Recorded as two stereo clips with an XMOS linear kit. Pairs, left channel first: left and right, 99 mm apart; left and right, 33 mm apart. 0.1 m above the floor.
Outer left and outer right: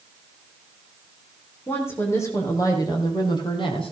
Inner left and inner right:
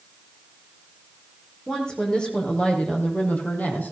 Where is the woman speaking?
25° left (ahead or behind), 4.5 m; by 3.9 s 65° left (ahead or behind), 3 m.